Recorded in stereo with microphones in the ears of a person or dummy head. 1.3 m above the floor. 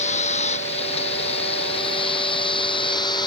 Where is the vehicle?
45° left (ahead or behind); by 3.3 s 30° left (ahead or behind).